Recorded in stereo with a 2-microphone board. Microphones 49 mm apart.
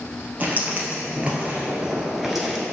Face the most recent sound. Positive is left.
turn(degrees=0)  # may be behind; listen again after turning